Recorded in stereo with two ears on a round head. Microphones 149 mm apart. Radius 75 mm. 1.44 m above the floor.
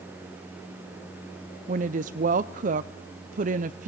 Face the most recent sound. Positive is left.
turn(degrees=-50)  # may be behind; listen again after turning